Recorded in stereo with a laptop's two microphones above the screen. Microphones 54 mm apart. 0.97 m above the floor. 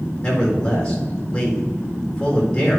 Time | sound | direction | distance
0.2 | a man speaking | 20° left (ahead or behind) | 4 m